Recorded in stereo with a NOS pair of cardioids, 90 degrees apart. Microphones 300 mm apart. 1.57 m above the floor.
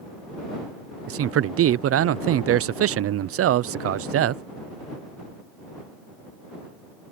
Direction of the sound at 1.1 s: 50° right.